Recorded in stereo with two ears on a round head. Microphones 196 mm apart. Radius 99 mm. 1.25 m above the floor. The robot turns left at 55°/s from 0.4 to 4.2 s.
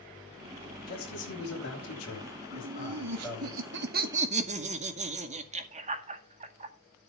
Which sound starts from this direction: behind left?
A man speaking, at 0.9 s.